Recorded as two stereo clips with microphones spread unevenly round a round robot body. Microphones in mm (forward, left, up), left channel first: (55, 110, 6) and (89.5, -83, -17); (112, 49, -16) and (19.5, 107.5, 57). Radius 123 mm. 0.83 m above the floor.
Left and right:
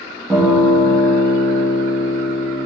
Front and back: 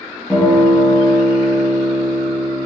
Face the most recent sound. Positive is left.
turn(degrees=0)